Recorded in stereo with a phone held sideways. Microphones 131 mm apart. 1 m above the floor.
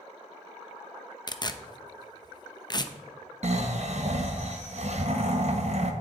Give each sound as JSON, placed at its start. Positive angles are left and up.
{"t": 1.3, "sound": "tearing paper", "side_deg": 30, "distance_m": 0.7}
{"t": 3.4, "sound": "snoring", "side_deg": -55, "distance_m": 1.2}